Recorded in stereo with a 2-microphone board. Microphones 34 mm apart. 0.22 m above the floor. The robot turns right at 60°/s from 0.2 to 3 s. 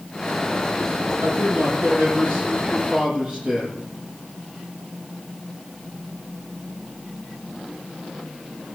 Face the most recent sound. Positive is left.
turn(degrees=-25)